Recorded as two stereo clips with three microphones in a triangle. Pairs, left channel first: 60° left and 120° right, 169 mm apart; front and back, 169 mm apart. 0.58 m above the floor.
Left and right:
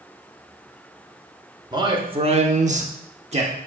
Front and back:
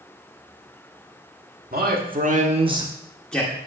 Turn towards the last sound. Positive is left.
turn(degrees=-75)